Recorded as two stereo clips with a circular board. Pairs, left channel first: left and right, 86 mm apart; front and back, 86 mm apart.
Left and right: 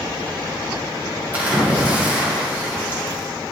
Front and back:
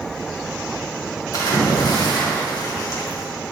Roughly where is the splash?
Ahead right.